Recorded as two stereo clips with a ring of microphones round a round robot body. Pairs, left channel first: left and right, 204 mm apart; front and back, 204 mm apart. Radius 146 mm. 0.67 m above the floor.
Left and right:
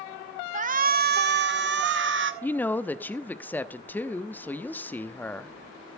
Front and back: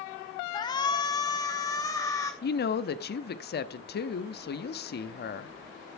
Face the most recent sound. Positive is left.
turn(degrees=10)